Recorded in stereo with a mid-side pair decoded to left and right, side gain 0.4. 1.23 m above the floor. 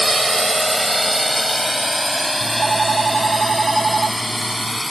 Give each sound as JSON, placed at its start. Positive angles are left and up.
{"t": 0.0, "sound": "a drone", "azimuth_deg": -15}
{"t": 2.4, "sound": "a phone ringing", "azimuth_deg": -35}